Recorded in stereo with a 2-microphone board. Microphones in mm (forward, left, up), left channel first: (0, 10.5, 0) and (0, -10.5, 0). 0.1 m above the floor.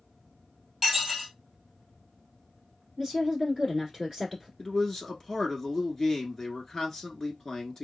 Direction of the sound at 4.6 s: 25° left (ahead or behind).